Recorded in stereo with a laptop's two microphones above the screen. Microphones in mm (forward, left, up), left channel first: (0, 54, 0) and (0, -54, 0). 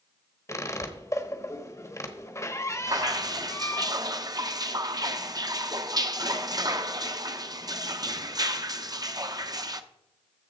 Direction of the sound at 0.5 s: 30° left (ahead or behind).